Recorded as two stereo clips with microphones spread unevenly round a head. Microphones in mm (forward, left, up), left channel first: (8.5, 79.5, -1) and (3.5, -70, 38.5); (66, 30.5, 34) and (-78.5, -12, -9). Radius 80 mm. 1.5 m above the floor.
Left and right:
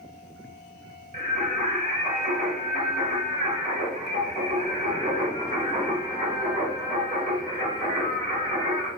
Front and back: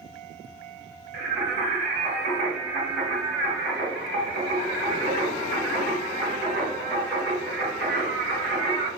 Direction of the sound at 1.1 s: 125° right.